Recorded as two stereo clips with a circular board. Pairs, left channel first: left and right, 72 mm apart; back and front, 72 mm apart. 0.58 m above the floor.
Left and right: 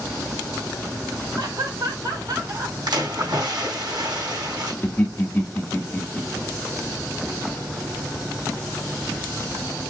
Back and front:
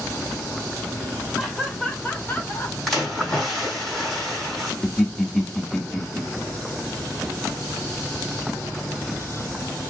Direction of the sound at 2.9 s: 95° right.